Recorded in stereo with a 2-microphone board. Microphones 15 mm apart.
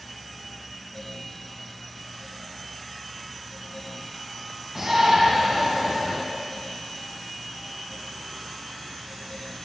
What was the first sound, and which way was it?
A shout, 20° right (ahead or behind).